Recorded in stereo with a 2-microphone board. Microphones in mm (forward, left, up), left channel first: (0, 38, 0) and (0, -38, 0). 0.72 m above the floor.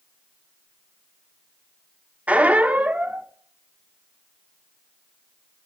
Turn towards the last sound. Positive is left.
turn(degrees=-20)  # may be behind; listen again after turning